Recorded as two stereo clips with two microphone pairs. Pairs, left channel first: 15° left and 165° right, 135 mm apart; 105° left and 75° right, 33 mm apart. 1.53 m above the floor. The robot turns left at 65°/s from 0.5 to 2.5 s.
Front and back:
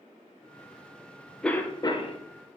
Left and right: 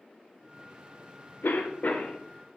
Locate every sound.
1.4 s a cough: 100° left, 0.5 m; by 2.2 s 55° left, 0.5 m